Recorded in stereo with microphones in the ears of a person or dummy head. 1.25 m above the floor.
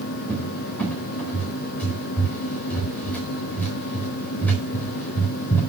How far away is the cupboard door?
About 4 m.